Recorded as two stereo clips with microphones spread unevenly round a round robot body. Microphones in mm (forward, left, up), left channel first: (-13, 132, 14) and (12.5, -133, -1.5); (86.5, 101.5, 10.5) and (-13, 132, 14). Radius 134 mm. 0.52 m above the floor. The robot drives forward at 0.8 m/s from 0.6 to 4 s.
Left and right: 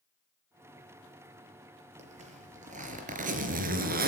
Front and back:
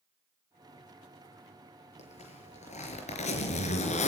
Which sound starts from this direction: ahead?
A zipper, at 2.0 s.